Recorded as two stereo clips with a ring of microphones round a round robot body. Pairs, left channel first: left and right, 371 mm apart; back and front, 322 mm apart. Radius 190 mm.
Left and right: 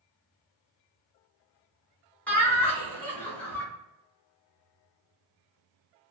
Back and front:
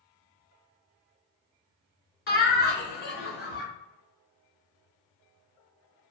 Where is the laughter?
170° left, 1.3 m.